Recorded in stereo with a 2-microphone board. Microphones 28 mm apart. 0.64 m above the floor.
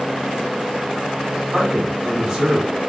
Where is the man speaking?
20° right (ahead or behind), 1.5 m.